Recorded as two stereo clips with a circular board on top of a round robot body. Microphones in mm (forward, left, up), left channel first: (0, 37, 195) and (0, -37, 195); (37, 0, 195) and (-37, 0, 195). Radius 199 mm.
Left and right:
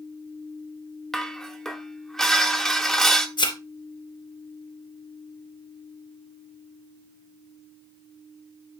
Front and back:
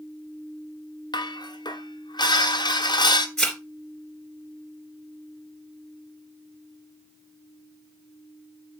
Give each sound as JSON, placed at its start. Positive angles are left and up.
{"t": 1.1, "sound": "dishes clattering", "azimuth_deg": 5, "distance_m": 1.5}
{"t": 3.4, "sound": "a thud", "azimuth_deg": 85, "distance_m": 3.0}